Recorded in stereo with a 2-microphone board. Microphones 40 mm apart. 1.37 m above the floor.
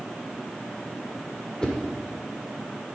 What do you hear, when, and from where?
1.6 s a whoosh: 20° left (ahead or behind), 1.7 m